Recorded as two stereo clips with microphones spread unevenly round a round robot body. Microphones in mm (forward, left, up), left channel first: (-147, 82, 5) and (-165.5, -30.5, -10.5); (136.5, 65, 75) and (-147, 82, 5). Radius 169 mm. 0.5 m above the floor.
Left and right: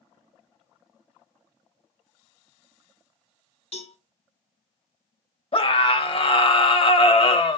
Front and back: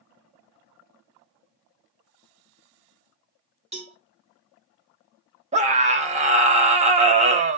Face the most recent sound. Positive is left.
turn(degrees=120)